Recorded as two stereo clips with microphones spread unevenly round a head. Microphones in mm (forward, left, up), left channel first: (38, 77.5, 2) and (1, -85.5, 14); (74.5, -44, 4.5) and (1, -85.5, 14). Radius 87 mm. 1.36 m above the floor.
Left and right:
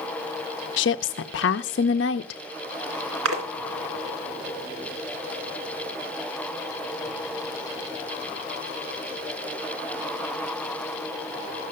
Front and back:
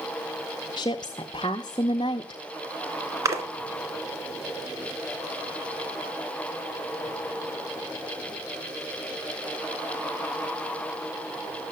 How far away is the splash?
About 3 m.